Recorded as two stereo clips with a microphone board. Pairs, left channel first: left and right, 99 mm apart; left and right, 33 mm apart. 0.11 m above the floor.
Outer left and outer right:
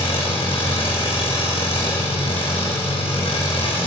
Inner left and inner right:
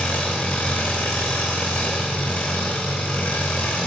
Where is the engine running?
70° left (ahead or behind), 2.5 m.